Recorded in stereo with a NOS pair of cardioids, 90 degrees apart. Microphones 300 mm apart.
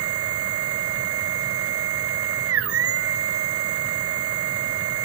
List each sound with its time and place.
0.0 s a machine running: 50° right, 1.0 m